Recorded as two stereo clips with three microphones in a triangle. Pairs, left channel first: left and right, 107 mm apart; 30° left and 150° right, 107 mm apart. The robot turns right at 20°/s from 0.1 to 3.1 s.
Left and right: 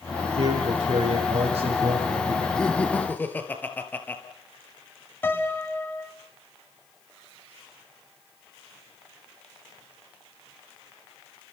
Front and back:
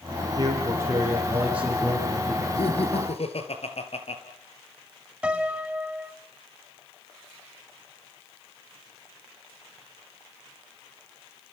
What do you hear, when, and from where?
0.4 s a man speaking: 95° right, 9 m; by 2.5 s 55° right, 9 m
2.6 s laughter: 5° left, 3 m; by 4.2 s 15° left, 3 m
5.2 s a piano: 140° left, 1.4 m